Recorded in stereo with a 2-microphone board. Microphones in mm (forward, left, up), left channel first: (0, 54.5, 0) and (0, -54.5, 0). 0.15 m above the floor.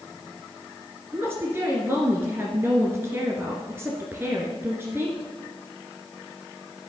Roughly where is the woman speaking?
Right.